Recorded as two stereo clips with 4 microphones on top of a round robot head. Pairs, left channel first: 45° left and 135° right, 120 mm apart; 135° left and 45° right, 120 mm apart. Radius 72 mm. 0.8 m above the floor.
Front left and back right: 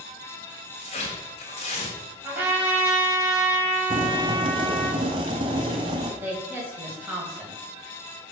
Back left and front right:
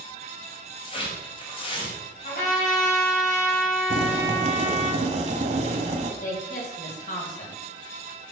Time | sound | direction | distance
0.8 | tearing paper | 90° left | 3.5 m
2.2 | a trumpet | 150° left | 5.5 m
3.9 | boiling | 80° right | 1.5 m
6.2 | a woman speaking | 150° left | 4.5 m